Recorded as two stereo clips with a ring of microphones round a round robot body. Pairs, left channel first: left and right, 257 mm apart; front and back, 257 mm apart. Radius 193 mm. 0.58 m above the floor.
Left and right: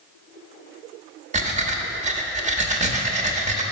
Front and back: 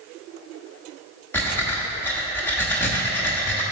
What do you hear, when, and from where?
1.3 s breathing: 75° right, 0.8 m